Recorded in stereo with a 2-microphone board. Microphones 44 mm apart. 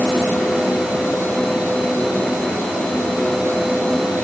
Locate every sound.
Only background noise.